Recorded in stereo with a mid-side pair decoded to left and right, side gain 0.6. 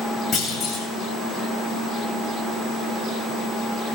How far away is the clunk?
About 6.5 m.